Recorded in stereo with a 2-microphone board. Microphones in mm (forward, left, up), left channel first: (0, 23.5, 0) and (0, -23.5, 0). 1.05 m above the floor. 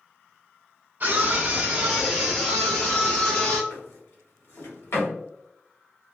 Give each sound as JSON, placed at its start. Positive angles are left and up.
{"t": 1.0, "sound": "a scream", "side_deg": -40, "distance_m": 0.7}
{"t": 3.7, "sound": "a drawer", "side_deg": 65, "distance_m": 1.2}